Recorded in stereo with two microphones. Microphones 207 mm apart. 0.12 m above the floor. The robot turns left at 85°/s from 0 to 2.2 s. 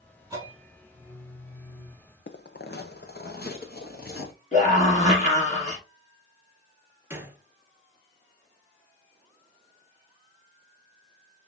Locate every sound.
0.3 s a bell: 160° right, 1.5 m; by 2.0 s 60° left, 1.5 m
2.3 s footsteps: 60° left (ahead or behind), 0.6 m; by 4.3 s 50° left (ahead or behind), 1.9 m
4.5 s a scream: 35° left (ahead or behind), 2.5 m
7.1 s a gunshot: 10° right (ahead or behind), 0.9 m